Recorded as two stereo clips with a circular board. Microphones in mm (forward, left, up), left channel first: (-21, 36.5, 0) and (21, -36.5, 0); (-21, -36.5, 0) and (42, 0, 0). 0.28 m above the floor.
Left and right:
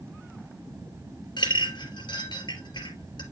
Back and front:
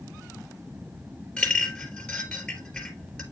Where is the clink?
135° left, 2.5 m.